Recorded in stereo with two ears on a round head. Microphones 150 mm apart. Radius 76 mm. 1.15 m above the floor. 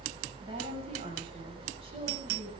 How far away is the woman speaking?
About 7 m.